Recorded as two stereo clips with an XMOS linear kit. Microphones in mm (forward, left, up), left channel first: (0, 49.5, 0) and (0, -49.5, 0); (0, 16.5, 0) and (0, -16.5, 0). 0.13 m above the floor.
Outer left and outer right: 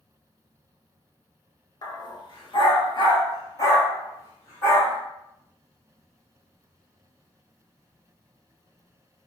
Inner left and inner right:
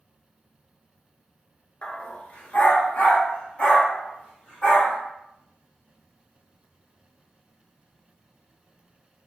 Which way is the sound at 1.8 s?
40° left (ahead or behind).